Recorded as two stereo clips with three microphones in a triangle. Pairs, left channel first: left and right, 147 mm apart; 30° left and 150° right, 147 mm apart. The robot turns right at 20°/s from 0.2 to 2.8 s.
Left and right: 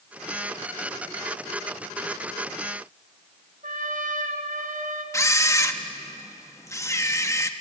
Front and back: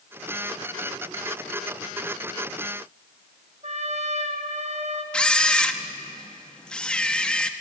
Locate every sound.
3.6 s a trumpet: 110° right, 1.8 m
5.1 s a camera shutter: 100° left, 1.0 m